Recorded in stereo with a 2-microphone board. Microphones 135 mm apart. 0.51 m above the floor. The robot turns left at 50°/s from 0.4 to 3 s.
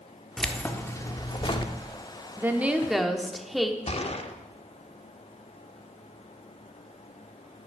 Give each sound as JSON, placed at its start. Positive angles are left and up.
{"t": 0.4, "sound": "keys jangling", "azimuth_deg": 175, "distance_m": 0.7}
{"t": 2.4, "sound": "a woman speaking", "azimuth_deg": -145, "distance_m": 0.9}
{"t": 3.9, "sound": "a gunshot", "side_deg": 50, "distance_m": 0.7}